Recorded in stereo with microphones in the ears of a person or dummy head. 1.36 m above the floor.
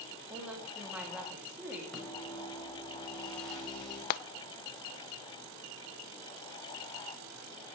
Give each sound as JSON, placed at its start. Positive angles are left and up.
{"t": 0.3, "sound": "a woman speaking", "side_deg": -5, "distance_m": 3.0}
{"t": 1.9, "sound": "a microwave", "side_deg": 5, "distance_m": 4.5}
{"t": 4.1, "sound": "frying", "side_deg": 50, "distance_m": 0.8}